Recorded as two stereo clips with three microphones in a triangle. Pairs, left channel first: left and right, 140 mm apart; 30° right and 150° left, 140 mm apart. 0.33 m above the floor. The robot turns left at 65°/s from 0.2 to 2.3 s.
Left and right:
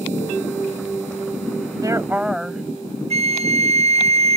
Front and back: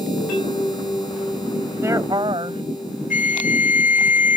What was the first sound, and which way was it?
A woman speaking, 140° right.